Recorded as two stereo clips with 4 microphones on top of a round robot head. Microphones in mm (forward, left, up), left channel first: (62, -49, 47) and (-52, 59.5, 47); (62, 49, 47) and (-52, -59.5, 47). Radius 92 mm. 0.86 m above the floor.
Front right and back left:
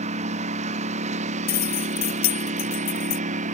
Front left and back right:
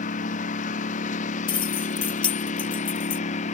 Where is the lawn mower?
90° left.